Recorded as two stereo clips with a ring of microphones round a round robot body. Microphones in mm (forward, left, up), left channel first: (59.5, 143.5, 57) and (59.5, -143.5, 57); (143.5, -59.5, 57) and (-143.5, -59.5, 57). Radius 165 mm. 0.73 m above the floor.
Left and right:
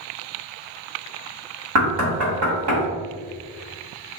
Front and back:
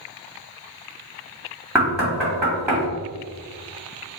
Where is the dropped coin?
No dropped coin in this recording.